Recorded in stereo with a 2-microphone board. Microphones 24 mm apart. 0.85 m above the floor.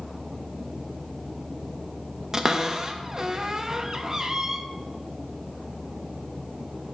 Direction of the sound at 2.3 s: 25° right (ahead or behind).